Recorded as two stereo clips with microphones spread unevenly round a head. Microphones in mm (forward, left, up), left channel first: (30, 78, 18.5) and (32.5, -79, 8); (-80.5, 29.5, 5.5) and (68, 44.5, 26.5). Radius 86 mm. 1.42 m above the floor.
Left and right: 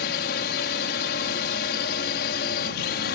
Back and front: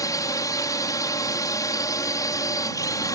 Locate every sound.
0.0 s a drone: 120° left